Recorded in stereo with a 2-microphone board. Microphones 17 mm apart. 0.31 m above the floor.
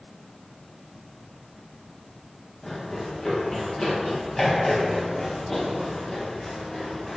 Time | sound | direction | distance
2.6 | running footsteps | 10° left (ahead or behind) | 8.5 m